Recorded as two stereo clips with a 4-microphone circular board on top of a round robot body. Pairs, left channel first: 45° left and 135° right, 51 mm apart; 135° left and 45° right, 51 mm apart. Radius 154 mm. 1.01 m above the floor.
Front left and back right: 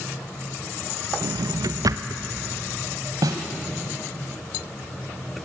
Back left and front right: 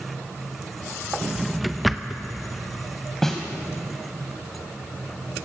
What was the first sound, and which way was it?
A drawer, 135° right.